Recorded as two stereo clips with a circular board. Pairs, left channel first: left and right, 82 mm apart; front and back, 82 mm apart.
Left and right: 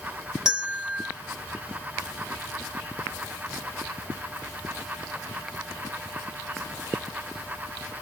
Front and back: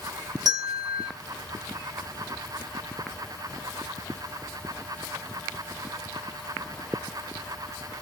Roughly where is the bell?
Behind.